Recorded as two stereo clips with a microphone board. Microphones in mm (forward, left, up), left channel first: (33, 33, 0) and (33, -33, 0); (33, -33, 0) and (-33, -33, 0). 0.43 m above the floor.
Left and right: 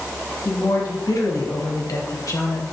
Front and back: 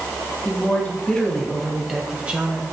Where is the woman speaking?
60° left, 3.5 m; by 2.6 s 120° left, 2.5 m.